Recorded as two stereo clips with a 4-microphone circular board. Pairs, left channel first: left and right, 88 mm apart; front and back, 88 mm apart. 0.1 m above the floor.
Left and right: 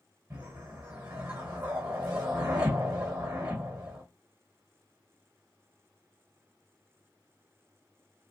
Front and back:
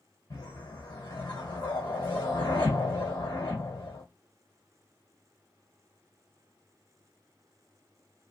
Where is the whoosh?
30° right, 1.3 m.